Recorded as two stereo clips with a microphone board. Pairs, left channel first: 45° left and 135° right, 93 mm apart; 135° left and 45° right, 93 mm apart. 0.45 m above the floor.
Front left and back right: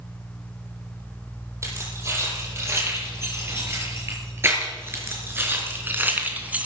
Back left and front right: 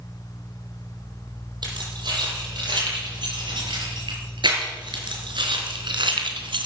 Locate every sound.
1.6 s keys jangling: 75° right, 9 m; by 6.7 s 60° right, 2 m